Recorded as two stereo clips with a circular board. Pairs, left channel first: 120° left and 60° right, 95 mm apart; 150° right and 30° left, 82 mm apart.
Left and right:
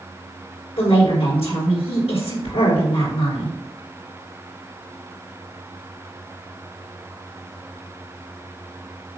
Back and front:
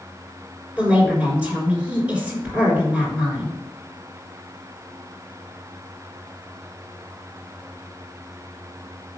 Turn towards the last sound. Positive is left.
turn(degrees=105)